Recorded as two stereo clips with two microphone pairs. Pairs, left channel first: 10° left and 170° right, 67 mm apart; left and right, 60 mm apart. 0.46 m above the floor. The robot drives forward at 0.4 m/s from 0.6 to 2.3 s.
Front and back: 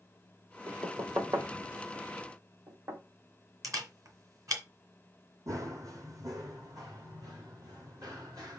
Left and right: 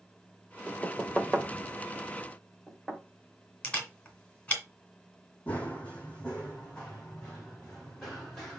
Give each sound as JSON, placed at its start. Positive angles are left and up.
{"t": 0.7, "sound": "knocking", "azimuth_deg": -175, "distance_m": 1.3}
{"t": 3.6, "sound": "a camera shutter", "azimuth_deg": 155, "distance_m": 1.9}
{"t": 5.5, "sound": "running footsteps", "azimuth_deg": 155, "distance_m": 1.2}